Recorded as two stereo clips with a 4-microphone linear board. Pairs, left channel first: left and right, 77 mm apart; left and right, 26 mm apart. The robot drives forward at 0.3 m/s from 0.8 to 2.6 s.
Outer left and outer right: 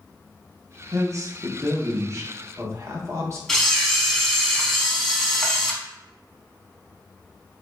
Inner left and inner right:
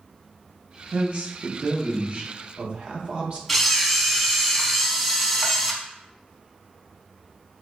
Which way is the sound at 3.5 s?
5° left (ahead or behind).